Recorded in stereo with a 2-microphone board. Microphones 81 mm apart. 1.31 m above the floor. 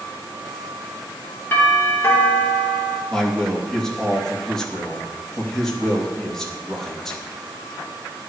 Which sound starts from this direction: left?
A doorbell, at 1.5 s.